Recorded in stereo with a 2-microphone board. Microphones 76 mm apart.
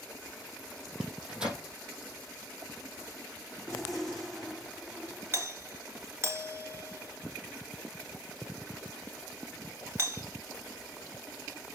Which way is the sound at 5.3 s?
35° right (ahead or behind).